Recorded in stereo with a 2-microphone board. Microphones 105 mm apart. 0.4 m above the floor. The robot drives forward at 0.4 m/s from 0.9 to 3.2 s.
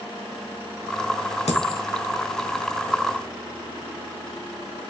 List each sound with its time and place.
1.5 s a dropped coin: 90° left, 1.1 m; by 1.8 s 85° left, 1.1 m